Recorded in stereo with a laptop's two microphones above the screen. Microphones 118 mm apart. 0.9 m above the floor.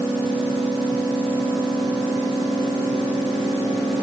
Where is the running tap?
No running tap in this recording.